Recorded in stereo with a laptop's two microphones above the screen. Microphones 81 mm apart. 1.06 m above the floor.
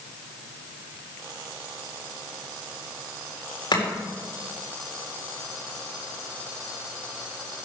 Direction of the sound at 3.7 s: 70° left (ahead or behind).